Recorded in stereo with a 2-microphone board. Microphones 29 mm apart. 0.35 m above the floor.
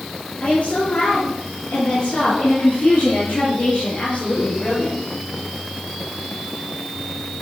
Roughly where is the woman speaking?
Left.